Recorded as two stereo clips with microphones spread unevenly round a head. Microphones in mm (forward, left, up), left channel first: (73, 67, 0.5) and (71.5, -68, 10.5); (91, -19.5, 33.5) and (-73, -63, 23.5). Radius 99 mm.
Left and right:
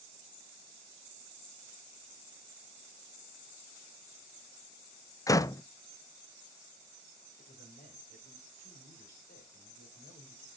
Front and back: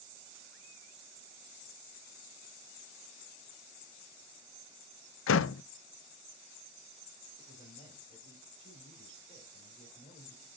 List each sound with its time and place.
5.3 s a door slam: 20° left, 0.5 m
7.4 s a man speaking: 80° left, 5.5 m